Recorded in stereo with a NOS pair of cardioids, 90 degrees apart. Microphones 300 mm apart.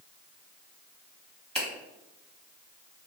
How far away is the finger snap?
About 1.3 m.